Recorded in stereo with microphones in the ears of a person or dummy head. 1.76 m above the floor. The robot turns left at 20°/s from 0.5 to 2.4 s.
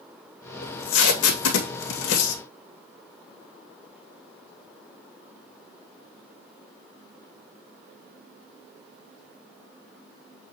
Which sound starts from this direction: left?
Tape being pulled, at 0.6 s.